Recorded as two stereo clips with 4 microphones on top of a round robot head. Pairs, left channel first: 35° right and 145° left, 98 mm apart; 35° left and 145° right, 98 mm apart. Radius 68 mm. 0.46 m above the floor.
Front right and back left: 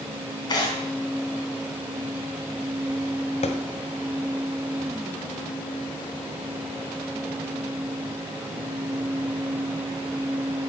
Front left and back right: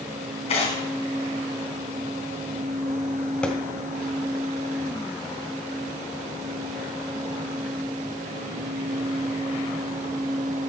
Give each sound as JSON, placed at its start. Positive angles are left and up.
{"t": 0.5, "sound": "tearing paper", "azimuth_deg": 10, "distance_m": 3.5}
{"t": 3.4, "sound": "a thud", "azimuth_deg": -45, "distance_m": 1.5}